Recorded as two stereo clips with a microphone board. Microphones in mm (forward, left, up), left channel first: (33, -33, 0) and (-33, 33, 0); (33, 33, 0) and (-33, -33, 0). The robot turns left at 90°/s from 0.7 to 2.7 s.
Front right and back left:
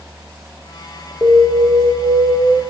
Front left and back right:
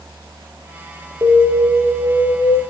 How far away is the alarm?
About 1.7 m.